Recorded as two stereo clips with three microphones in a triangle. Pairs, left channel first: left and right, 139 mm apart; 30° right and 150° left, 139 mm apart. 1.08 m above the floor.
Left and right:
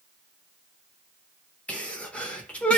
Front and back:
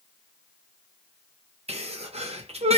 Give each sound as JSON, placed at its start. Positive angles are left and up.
{"t": 1.7, "sound": "a sneeze", "azimuth_deg": 170, "distance_m": 0.7}